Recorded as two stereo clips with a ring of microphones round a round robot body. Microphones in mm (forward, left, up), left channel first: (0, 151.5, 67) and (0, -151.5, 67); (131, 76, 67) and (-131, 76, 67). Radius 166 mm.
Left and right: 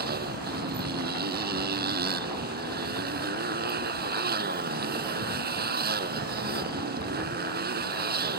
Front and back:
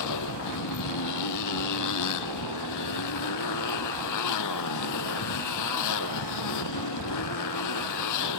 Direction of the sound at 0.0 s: 30° right.